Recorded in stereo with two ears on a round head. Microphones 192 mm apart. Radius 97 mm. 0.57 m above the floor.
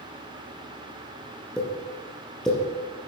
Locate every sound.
1.6 s a pop: 5° left (ahead or behind), 3.5 m